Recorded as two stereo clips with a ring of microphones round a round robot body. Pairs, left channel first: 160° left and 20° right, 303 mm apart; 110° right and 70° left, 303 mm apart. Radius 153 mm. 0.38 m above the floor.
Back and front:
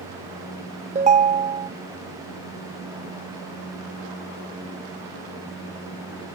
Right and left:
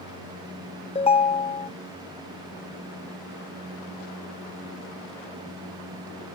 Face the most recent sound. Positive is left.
turn(degrees=-65)